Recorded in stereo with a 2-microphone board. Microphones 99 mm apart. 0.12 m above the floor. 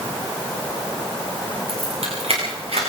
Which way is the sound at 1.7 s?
80° right.